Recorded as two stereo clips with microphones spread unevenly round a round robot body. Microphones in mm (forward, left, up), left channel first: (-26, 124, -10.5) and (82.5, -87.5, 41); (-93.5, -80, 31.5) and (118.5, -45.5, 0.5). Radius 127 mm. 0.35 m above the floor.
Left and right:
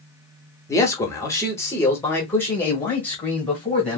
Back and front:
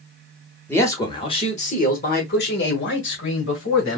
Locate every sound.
0.7 s a man speaking: 100° left, 1.2 m; by 4.0 s 165° right, 2.0 m